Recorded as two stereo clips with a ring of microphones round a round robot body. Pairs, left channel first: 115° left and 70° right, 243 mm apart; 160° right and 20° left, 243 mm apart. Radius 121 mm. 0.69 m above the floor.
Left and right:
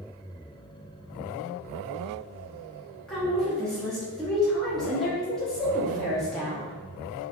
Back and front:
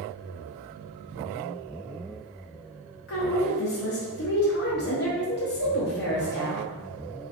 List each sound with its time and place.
3.1 s a woman speaking: 160° right, 0.8 m